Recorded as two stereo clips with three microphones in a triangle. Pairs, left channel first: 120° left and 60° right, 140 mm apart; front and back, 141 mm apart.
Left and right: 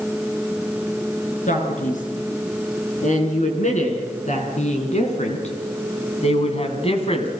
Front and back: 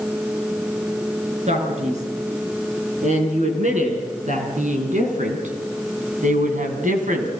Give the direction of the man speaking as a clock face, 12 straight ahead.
7 o'clock.